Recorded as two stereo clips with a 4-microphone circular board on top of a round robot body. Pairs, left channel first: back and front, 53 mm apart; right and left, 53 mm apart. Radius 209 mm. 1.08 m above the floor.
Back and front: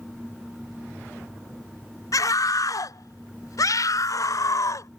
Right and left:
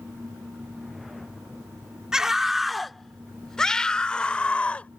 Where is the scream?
170° left; by 4.9 s 160° right.